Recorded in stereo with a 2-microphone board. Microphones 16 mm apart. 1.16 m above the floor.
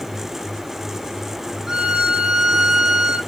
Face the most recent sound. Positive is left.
turn(degrees=-45)  # may be behind; listen again after turning